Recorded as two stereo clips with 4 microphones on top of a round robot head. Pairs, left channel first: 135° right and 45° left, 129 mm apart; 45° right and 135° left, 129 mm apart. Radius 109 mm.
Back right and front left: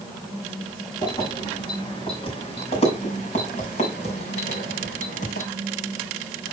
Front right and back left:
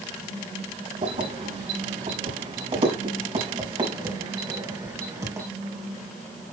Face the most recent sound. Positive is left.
turn(degrees=-160)